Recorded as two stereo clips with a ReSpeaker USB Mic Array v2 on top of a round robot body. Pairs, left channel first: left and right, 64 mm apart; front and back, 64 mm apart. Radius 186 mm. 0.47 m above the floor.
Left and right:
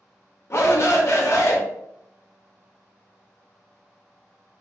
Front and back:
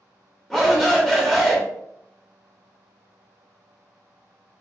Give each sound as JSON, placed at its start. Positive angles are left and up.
{"t": 0.5, "sound": "a shout", "azimuth_deg": 80, "distance_m": 0.8}